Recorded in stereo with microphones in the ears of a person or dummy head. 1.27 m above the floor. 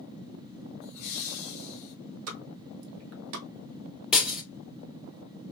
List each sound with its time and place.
0.8 s laughter: 45° left (ahead or behind), 1.5 m
2.3 s a pop: 80° right, 0.9 m
4.1 s breaking glass: 5° right (ahead or behind), 1.4 m